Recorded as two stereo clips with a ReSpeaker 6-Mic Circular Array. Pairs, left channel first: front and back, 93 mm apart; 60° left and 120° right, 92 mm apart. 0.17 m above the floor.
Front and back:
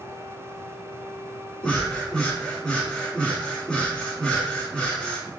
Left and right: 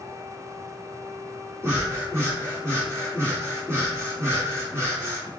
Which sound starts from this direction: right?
Breathing, at 1.6 s.